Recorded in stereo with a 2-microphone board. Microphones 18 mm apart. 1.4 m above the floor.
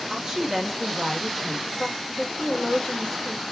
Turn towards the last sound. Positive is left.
turn(degrees=55)  # may be behind; listen again after turning